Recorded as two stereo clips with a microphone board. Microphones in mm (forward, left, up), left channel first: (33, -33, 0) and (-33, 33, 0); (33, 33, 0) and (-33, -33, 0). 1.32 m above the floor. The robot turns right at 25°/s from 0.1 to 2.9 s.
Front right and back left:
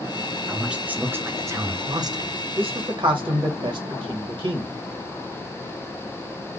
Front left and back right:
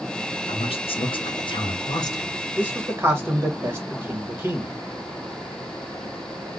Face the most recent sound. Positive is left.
turn(degrees=160)